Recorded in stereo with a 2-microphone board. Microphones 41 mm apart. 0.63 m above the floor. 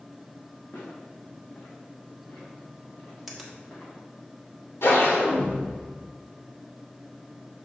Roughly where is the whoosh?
Left.